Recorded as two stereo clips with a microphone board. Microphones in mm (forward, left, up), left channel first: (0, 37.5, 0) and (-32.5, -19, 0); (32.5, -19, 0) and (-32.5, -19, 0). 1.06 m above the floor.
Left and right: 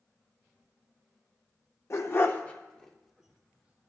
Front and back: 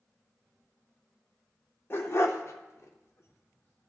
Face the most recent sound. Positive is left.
turn(degrees=-55)